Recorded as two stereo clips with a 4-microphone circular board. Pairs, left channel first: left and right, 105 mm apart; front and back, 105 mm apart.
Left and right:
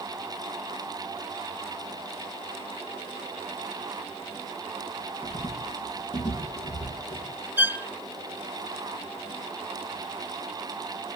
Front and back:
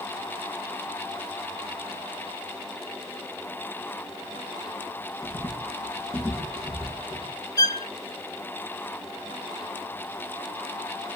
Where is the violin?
30° right, 0.6 m.